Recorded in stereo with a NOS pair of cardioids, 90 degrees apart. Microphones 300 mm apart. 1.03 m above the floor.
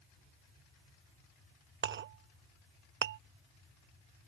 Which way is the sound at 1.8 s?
40° right.